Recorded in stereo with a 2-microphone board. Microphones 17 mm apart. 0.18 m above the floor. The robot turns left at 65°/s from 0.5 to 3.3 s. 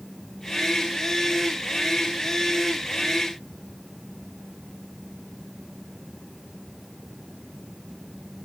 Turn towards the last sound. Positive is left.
No sound to turn to.